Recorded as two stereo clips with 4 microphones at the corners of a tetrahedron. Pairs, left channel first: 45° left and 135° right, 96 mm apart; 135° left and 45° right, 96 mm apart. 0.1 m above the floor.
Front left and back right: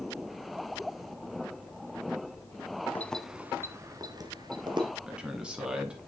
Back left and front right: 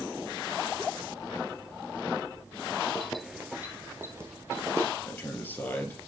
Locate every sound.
3.0 s keys jangling: 70° left, 0.8 m; by 4.9 s 105° right, 1.8 m
5.1 s a man speaking: 160° left, 1.7 m